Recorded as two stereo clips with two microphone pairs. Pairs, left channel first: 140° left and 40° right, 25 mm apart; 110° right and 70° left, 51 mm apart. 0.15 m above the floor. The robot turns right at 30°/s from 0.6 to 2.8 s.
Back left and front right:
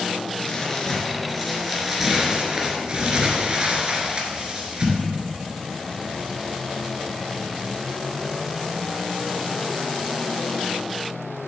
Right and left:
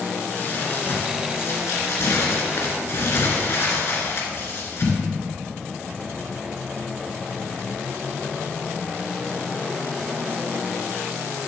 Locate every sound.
0.4 s crumpling: 155° right, 2.5 m; by 5.0 s 85° right, 2.5 m